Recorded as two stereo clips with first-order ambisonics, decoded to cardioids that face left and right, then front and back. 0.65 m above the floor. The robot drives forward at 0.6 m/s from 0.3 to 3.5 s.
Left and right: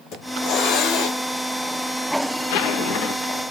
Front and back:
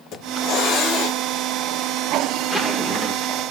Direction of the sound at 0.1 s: 45° left.